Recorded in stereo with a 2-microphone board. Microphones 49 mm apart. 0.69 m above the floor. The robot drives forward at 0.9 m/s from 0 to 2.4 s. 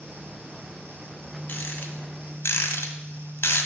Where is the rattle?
45° left (ahead or behind), 1.8 m; by 3.7 s 70° left (ahead or behind), 1.4 m.